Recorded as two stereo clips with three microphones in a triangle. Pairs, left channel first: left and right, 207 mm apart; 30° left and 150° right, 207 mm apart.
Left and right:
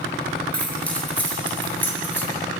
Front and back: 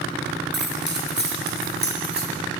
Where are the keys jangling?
175° left, 6 m; by 2.3 s 170° left, 7 m.